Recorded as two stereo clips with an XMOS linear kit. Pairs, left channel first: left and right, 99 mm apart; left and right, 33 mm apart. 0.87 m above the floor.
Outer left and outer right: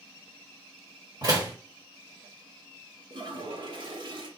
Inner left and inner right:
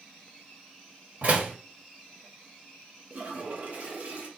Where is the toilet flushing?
50° right (ahead or behind), 1.0 m.